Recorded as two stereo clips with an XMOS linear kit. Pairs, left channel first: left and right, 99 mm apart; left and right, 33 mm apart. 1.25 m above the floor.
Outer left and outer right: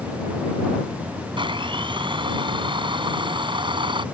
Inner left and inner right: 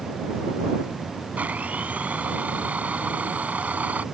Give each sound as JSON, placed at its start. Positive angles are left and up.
{"t": 1.4, "sound": "a blender", "side_deg": -55}